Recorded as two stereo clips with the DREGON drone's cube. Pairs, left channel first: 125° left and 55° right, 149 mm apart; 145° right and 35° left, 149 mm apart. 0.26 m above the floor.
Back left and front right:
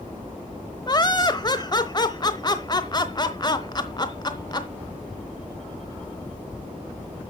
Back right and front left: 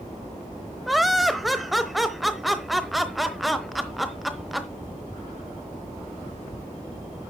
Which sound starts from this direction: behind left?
Laughter, at 0.9 s.